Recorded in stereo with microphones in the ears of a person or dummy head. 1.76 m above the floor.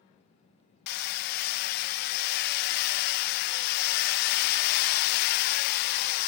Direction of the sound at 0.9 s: 55° left (ahead or behind).